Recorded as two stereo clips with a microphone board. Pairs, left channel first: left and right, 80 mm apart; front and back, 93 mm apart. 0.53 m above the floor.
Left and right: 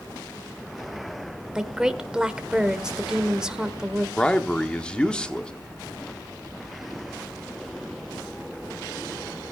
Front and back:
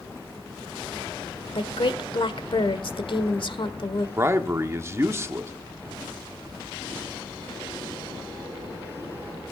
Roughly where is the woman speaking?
Ahead.